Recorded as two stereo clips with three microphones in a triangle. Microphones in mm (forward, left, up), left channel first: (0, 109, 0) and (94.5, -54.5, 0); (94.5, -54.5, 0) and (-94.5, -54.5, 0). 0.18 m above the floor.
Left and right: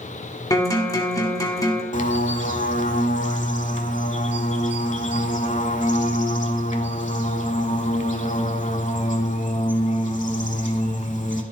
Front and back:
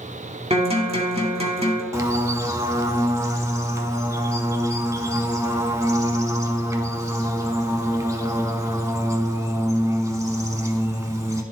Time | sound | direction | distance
0.5 | a guitar | 175° left | 1.9 m
1.9 | a bird | 115° left | 0.7 m